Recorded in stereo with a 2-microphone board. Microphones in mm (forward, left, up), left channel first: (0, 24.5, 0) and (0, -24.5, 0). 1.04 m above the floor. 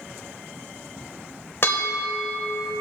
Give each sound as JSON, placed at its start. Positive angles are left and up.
{"t": 1.6, "sound": "a bell", "side_deg": 55, "distance_m": 1.3}